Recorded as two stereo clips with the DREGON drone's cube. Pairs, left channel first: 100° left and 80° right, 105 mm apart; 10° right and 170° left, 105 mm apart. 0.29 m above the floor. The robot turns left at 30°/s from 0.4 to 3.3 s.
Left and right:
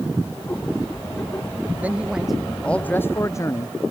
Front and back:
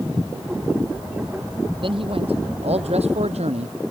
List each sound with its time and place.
1.8 s a man speaking: 155° right; by 3.9 s 165° left